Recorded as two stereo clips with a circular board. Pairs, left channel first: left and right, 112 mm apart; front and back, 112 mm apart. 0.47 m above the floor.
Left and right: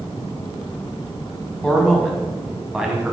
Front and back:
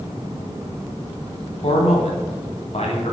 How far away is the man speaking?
About 3 m.